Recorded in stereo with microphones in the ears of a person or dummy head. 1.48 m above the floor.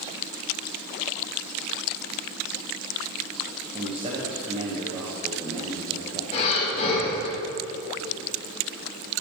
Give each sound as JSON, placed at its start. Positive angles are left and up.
{"t": 3.7, "sound": "a man speaking", "side_deg": -25, "distance_m": 0.8}
{"t": 6.3, "sound": "breathing", "side_deg": 35, "distance_m": 1.8}